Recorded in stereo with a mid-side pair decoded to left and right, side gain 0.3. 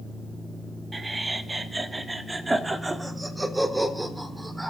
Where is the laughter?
35° right, 2.5 m; by 4.7 s 15° right, 5 m.